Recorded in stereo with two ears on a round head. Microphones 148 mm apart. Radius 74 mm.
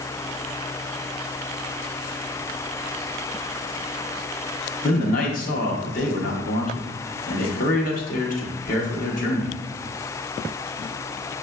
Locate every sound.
4.8 s a man speaking: 50° left (ahead or behind), 0.9 m